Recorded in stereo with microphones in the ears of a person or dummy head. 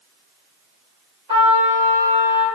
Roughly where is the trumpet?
Right.